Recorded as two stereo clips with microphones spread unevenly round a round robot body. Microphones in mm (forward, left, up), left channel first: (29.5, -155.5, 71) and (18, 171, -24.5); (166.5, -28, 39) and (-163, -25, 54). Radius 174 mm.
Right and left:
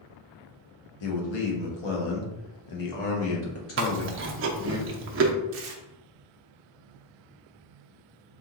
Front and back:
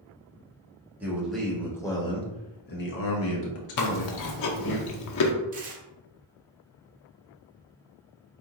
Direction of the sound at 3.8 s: 30° left.